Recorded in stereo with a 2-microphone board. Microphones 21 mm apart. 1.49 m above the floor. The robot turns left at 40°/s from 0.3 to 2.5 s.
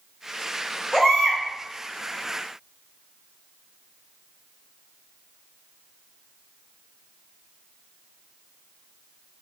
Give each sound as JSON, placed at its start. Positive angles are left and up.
{"t": 0.9, "sound": "a baby crying", "side_deg": 10, "distance_m": 1.5}